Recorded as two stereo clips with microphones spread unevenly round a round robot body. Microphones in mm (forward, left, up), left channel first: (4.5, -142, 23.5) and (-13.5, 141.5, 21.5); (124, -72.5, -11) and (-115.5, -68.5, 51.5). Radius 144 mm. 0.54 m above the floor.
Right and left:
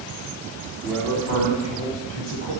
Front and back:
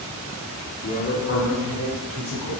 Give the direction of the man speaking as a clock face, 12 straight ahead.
12 o'clock.